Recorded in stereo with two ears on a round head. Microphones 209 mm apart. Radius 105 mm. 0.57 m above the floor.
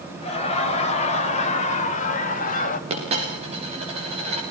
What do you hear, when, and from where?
0.2 s laughter: 30° left (ahead or behind), 3 m; by 2.8 s 40° left (ahead or behind), 1.8 m
2.9 s a dropped coin: 30° right (ahead or behind), 8.5 m